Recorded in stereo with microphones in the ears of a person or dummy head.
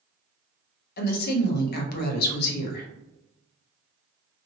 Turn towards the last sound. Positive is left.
turn(degrees=50)  # may be behind; listen again after turning